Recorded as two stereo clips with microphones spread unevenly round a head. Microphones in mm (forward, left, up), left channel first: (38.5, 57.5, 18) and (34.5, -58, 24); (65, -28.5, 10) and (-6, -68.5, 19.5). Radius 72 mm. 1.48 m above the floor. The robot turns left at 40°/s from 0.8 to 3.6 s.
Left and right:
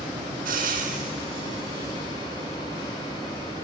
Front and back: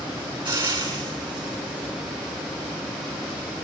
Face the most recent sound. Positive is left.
turn(degrees=120)